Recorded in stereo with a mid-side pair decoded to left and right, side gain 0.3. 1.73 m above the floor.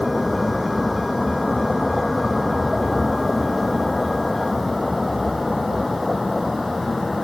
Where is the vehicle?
20° left; by 7.2 s 25° left.